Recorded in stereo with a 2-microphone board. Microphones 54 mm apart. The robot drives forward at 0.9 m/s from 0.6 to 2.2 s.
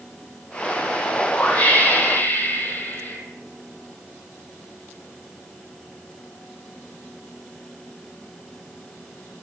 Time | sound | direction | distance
1.1 | a whoosh | 25° left (ahead or behind) | 2.5 m